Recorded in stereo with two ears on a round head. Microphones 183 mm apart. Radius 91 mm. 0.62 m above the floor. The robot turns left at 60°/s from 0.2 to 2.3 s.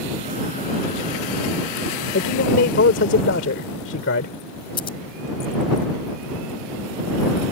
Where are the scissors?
25° left (ahead or behind).